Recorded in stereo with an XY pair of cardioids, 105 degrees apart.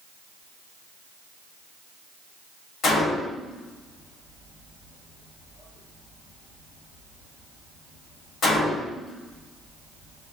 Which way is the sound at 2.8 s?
60° left.